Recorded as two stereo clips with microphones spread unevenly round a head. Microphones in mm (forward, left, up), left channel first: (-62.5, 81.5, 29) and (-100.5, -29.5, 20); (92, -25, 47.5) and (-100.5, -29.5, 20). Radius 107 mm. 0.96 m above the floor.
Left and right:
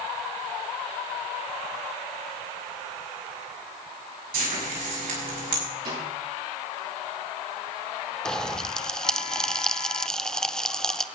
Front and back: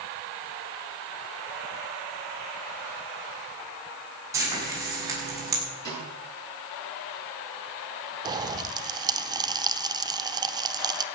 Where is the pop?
160° left, 0.7 m.